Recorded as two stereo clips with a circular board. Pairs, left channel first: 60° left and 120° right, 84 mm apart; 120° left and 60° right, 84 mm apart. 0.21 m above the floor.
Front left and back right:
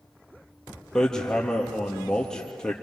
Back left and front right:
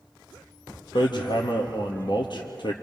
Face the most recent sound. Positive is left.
turn(degrees=145)